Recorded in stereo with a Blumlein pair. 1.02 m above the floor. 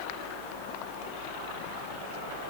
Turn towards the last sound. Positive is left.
No sound to turn to.